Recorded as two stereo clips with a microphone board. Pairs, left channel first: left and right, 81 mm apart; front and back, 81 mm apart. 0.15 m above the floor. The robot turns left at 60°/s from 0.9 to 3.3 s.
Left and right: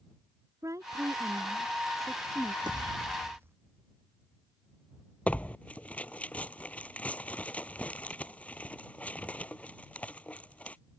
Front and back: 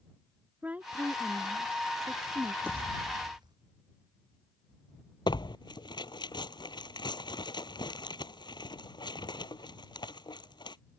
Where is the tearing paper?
15° left.